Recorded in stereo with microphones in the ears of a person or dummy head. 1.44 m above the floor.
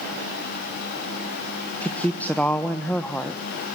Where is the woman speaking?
10° left (ahead or behind), 1.2 m.